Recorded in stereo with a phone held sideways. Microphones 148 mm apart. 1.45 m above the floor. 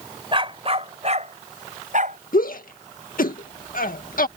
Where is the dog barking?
35° right (ahead or behind); by 2.2 s 60° right (ahead or behind).